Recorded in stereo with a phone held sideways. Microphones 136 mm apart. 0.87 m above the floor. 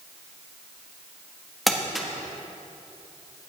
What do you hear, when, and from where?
1.7 s crumpling: centre (ahead or behind), 1.5 m